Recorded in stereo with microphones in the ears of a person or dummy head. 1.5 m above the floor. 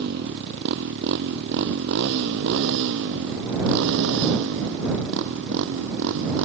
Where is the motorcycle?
60° right (ahead or behind); by 6.5 s 70° right (ahead or behind).